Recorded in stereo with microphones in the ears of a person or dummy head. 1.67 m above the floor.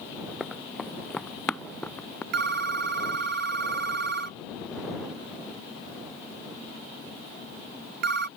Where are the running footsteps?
10° left (ahead or behind); by 2.2 s 20° left (ahead or behind).